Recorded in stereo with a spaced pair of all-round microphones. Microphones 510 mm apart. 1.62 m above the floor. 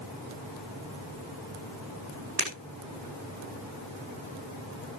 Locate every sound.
2.4 s breaking glass: 50° right (ahead or behind), 7.5 m